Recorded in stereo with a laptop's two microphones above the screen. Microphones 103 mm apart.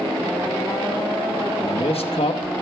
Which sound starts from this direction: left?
A man speaking, at 1.6 s.